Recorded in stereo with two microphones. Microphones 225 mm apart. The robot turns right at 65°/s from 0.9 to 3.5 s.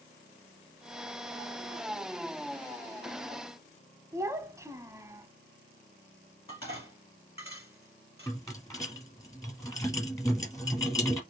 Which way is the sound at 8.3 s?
15° left (ahead or behind).